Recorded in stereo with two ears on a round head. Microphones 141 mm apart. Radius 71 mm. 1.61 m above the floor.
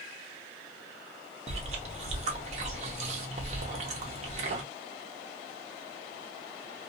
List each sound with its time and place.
1.5 s chewing: 45° right (ahead or behind), 0.8 m